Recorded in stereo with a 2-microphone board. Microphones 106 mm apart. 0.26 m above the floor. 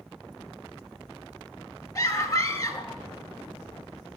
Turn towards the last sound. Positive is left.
turn(degrees=30)  # may be behind; listen again after turning